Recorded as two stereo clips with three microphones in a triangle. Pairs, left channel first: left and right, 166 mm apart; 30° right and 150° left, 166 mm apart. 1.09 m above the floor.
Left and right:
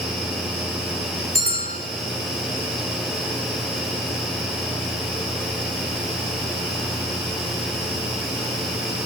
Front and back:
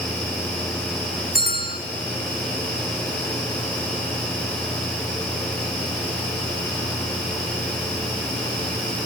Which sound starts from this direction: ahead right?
A bell, at 1.4 s.